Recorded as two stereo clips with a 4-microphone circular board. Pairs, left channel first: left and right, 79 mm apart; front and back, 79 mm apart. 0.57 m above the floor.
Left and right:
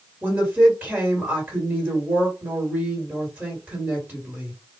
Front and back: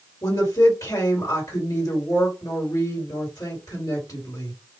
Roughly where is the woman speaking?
Ahead right.